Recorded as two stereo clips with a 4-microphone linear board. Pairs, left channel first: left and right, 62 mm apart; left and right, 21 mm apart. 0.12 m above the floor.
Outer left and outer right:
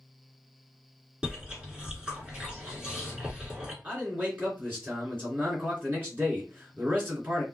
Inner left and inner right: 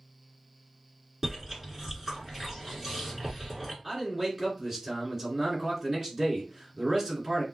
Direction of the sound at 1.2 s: 15° right (ahead or behind).